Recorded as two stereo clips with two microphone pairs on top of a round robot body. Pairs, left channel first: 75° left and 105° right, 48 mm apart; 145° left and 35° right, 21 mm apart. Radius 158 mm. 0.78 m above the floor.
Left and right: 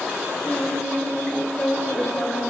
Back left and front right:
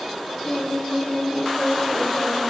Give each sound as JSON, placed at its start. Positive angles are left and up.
{"t": 0.5, "sound": "singing", "azimuth_deg": 125, "distance_m": 3.5}